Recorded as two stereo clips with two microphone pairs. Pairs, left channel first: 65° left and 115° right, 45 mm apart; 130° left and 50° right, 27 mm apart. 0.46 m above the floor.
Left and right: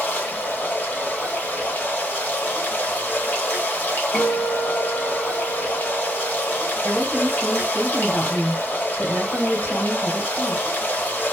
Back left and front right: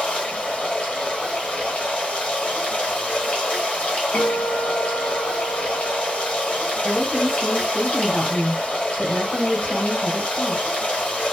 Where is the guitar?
125° left, 1.3 m.